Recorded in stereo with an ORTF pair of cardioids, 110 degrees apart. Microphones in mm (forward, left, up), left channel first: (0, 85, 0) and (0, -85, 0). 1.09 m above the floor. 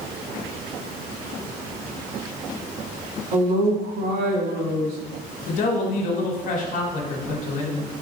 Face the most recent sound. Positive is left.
turn(degrees=50)